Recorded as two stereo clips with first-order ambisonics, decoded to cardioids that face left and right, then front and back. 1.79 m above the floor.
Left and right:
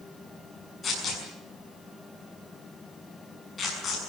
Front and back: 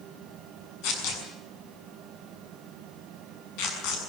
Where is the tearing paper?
20° left, 6.5 m.